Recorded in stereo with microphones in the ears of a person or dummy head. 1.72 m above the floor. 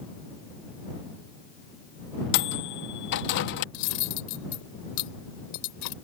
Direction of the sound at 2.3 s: 60° left (ahead or behind).